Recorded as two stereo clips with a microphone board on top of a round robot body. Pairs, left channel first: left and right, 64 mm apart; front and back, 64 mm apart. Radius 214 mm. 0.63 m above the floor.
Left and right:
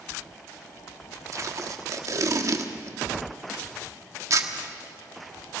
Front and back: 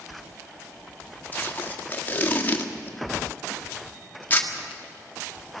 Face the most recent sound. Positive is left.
turn(degrees=-60)